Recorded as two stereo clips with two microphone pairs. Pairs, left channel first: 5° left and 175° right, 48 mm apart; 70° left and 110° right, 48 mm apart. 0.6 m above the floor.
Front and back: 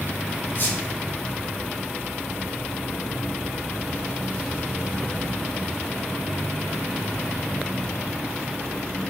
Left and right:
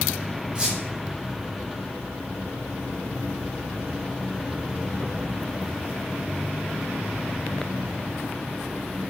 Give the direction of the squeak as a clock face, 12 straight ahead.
1 o'clock.